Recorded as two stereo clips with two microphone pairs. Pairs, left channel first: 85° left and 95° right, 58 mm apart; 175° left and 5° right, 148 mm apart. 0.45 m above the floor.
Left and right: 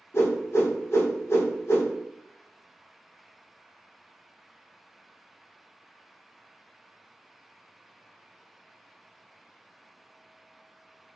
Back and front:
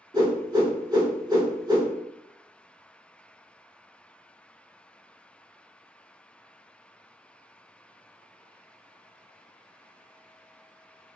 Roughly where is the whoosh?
Ahead left.